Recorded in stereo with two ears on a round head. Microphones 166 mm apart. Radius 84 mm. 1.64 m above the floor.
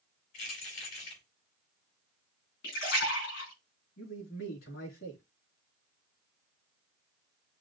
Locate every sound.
0.3 s keys jangling: 75° left (ahead or behind), 3.5 m
2.6 s a splash: 65° left (ahead or behind), 4 m
4.0 s a man speaking: 70° left (ahead or behind), 3.5 m